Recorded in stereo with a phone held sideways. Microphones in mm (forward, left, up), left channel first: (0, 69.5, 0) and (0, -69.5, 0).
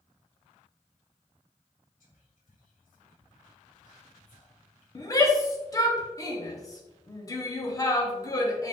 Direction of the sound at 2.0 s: 80° left.